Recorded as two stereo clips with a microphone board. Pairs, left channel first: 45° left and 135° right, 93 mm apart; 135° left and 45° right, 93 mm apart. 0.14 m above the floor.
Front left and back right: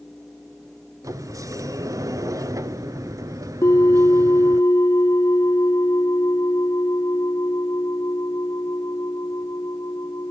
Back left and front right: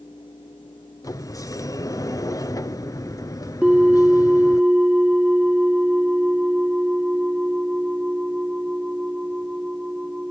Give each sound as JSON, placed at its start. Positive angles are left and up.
{"t": 1.0, "sound": "a sliding door", "azimuth_deg": 180, "distance_m": 0.6}
{"t": 3.6, "sound": "a bell", "azimuth_deg": 30, "distance_m": 1.1}